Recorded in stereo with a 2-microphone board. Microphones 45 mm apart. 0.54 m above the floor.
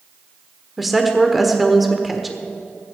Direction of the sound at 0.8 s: Centre (ahead or behind).